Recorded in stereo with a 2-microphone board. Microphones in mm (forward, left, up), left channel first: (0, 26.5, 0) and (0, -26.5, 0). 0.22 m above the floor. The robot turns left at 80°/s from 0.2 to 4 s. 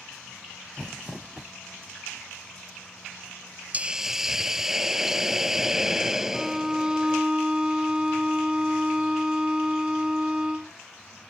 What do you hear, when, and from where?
0.8 s crumpling: 15° left; by 1.5 s 45° right
3.7 s a hiss: 30° right (ahead or behind); by 7.2 s 10° right (ahead or behind)
6.3 s a violin: 15° right (ahead or behind)